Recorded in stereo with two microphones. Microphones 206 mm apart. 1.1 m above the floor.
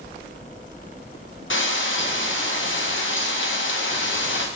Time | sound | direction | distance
1.5 | frying | 70° left (ahead or behind) | 0.8 m